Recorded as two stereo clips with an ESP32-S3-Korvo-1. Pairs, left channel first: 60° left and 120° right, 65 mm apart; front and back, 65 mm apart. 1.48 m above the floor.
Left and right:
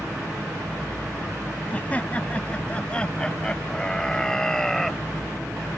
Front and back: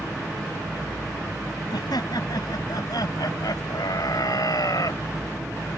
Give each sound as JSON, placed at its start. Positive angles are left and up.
{"t": 1.7, "sound": "laughter", "azimuth_deg": -5}